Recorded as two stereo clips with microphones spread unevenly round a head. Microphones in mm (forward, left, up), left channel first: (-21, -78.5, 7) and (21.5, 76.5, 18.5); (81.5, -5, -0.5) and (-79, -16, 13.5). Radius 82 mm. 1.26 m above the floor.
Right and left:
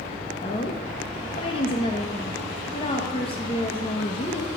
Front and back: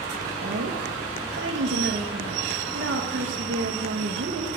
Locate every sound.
0.4 s a woman speaking: 165° right, 1.1 m